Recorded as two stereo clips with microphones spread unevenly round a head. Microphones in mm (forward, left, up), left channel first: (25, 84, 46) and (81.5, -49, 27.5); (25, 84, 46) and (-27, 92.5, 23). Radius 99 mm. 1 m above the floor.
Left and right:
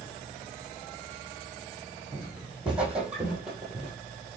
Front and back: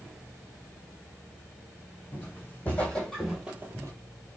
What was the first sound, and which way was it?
Footsteps, 20° left.